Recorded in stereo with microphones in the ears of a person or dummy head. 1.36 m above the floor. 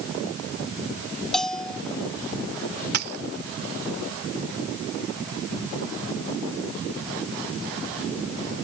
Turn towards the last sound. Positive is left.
turn(degrees=-50)  # may be behind; listen again after turning